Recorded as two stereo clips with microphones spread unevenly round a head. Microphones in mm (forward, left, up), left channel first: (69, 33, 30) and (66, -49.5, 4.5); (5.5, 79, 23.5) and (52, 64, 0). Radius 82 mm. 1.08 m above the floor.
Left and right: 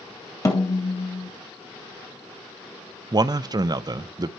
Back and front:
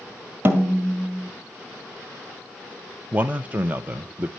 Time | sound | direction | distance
0.5 | a snare drum | 40° left | 1.9 m
3.1 | a man speaking | 70° right | 0.6 m